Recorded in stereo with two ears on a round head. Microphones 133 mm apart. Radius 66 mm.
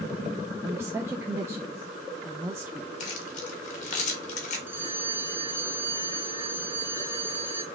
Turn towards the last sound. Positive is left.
turn(degrees=-15)  # may be behind; listen again after turning